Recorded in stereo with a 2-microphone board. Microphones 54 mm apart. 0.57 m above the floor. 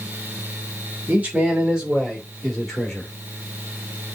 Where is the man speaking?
25° right (ahead or behind), 2.5 m; by 3.1 s 10° left (ahead or behind), 2.5 m.